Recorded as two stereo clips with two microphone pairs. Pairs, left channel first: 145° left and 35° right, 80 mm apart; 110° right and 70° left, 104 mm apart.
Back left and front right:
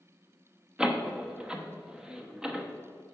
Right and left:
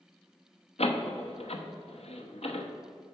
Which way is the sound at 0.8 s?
115° right.